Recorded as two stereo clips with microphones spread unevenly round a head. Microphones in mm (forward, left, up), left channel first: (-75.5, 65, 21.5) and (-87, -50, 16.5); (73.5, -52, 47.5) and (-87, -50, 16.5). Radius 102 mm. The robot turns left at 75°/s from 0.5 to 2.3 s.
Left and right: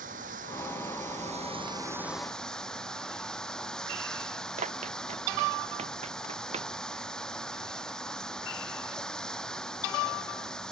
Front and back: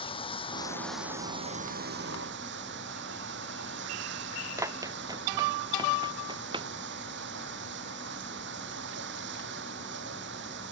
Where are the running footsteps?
110° right; by 6.7 s 120° right.